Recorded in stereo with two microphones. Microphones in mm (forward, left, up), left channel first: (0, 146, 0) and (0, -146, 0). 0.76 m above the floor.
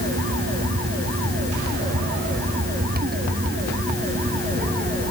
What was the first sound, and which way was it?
Only background noise.